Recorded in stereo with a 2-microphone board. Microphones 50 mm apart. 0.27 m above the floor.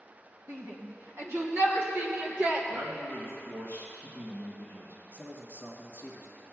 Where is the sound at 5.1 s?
40° right (ahead or behind), 2 m.